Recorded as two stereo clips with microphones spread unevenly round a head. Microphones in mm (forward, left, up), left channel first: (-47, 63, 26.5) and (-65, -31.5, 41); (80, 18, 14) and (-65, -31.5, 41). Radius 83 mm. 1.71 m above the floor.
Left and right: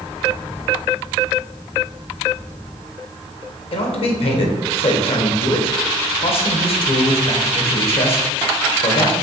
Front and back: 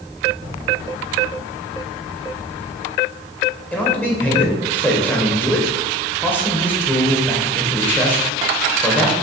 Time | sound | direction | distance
3.7 | a man speaking | 100° left | 0.9 m